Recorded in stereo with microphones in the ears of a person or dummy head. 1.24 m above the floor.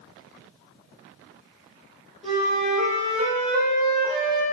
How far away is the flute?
About 1.7 m.